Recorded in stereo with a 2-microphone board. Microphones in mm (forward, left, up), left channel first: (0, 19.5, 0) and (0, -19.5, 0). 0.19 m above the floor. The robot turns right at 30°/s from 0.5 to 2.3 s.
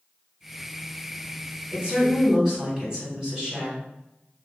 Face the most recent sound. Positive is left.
turn(degrees=-20)  # may be behind; listen again after turning